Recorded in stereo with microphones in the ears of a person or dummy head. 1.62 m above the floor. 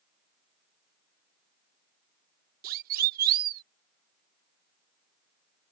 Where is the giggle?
I don't hear a giggle.